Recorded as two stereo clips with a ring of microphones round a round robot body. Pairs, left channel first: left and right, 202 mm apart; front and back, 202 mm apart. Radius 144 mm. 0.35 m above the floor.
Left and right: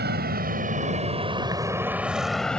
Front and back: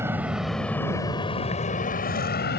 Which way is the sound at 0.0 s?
100° right.